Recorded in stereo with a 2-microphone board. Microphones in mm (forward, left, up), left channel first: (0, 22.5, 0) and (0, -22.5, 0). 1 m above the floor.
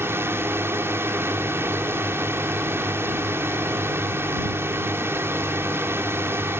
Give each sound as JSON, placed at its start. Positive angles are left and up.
{"t": 0.0, "sound": "a drone", "side_deg": -65}